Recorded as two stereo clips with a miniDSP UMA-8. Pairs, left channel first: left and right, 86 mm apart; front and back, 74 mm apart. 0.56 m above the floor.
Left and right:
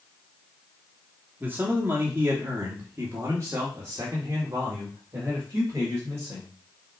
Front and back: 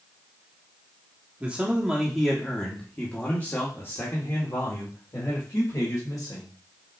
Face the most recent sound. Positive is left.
turn(degrees=-35)